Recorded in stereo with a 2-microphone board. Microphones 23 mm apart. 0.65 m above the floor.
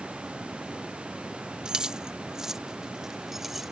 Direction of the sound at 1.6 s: 35° right (ahead or behind).